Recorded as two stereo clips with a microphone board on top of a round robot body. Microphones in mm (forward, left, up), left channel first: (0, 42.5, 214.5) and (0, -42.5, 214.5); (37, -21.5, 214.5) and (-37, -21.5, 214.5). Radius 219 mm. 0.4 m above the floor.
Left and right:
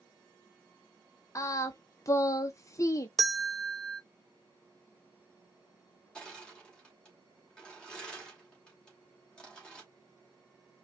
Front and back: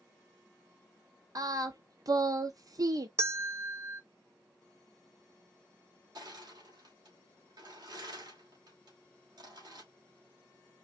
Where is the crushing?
170° left, 2.5 m.